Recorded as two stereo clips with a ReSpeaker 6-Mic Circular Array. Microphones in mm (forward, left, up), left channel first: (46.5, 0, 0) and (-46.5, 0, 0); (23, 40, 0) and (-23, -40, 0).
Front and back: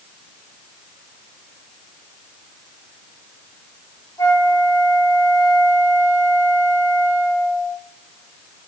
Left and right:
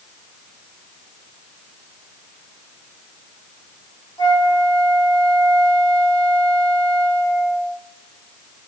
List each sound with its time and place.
4.2 s a flute: 40° left, 1.6 m